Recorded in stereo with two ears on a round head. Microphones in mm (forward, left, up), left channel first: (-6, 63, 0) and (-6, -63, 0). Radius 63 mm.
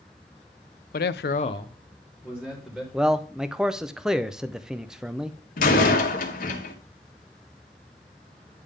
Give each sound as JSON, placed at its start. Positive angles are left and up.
{"t": 0.9, "sound": "a man speaking", "side_deg": 65, "distance_m": 0.6}
{"t": 2.9, "sound": "a man speaking", "side_deg": -5, "distance_m": 0.6}
{"t": 5.6, "sound": "a door slam", "side_deg": 65, "distance_m": 1.6}